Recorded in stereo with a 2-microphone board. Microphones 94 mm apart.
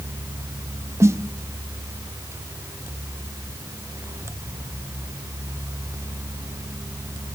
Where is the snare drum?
30° right (ahead or behind), 0.6 m.